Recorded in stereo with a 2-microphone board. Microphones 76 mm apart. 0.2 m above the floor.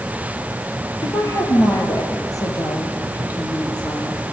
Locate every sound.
1.0 s a woman speaking: 35° left (ahead or behind), 5 m; by 4.2 s 55° left (ahead or behind), 7 m